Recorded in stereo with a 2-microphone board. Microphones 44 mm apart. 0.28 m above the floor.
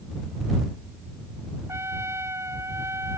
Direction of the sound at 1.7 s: 85° right.